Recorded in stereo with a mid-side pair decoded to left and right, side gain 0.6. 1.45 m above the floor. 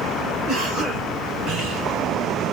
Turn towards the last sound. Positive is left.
turn(degrees=-60)